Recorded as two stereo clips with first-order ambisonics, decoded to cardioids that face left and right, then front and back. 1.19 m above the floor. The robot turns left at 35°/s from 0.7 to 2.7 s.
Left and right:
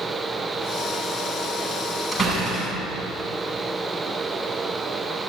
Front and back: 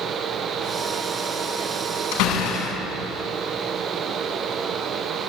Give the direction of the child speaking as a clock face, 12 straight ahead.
No child speaking in this recording.